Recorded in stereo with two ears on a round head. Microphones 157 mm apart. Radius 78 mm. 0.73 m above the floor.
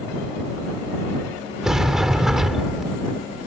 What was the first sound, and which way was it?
A sliding door, 5° right (ahead or behind).